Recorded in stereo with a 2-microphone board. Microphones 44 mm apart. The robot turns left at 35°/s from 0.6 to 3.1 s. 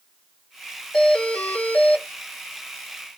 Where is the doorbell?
160° left, 1.6 m; by 2.1 s 120° left, 1.6 m.